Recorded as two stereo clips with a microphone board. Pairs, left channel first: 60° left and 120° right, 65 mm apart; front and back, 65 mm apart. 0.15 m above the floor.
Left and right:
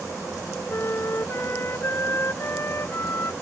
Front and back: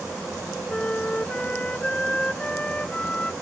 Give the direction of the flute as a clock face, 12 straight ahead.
10 o'clock.